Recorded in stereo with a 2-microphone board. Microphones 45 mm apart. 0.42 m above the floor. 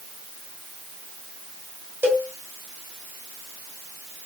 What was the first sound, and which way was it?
A cowbell, 45° right (ahead or behind).